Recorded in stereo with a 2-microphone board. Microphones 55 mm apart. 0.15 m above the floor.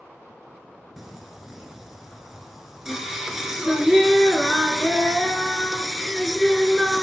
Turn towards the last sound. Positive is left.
turn(degrees=-5)  # may be behind; listen again after turning